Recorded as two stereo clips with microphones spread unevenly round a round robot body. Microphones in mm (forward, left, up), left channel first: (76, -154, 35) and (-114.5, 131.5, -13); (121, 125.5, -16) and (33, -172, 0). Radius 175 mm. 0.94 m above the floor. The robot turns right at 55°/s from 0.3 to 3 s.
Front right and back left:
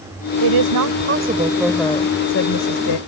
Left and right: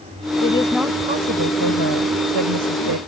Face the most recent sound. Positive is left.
turn(degrees=-75)